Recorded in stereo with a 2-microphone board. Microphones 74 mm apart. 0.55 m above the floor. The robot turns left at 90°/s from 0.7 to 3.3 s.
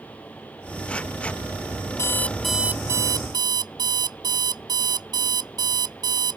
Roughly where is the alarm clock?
Ahead left.